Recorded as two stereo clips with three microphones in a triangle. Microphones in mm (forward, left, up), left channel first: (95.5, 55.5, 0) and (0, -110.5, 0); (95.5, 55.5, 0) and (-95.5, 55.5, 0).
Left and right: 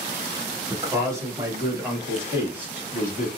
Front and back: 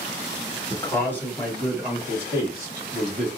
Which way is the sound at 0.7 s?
60° right.